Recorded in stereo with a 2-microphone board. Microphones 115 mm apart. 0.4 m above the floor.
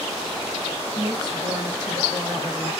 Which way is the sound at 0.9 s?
40° right (ahead or behind).